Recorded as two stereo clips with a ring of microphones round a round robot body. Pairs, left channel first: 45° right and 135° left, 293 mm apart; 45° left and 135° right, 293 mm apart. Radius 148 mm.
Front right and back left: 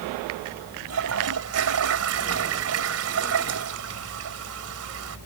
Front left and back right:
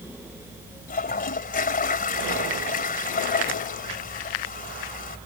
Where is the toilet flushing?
105° left.